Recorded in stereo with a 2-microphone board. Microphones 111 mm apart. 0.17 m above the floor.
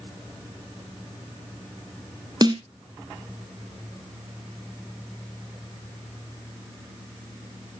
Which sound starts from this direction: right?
A snare drum, at 2.4 s.